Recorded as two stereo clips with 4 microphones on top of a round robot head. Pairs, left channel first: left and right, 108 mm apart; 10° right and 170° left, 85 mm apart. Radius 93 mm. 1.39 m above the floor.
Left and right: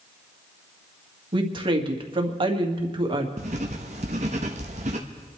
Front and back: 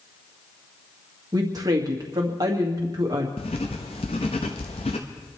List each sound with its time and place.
1.3 s a woman speaking: 135° right, 2 m
3.4 s writing: 50° right, 0.9 m